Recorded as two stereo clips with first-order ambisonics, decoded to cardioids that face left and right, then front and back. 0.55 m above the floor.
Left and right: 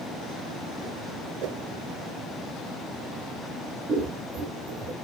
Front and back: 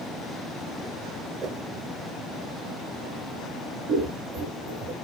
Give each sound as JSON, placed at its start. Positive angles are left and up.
{"t": 1.4, "sound": "a whoosh", "azimuth_deg": -120, "distance_m": 0.8}
{"t": 3.9, "sound": "scissors", "azimuth_deg": -150, "distance_m": 5.5}